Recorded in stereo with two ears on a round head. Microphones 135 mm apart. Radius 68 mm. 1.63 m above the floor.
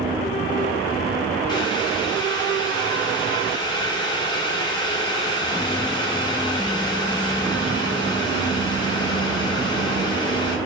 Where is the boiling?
30° left (ahead or behind), 1.1 m.